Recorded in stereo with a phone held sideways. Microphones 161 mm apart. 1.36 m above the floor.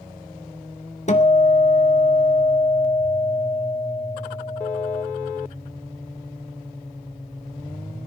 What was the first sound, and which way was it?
A guitar, 45° left (ahead or behind).